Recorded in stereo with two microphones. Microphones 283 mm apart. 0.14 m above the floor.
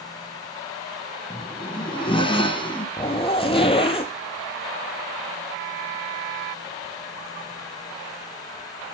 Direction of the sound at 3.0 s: 20° left (ahead or behind).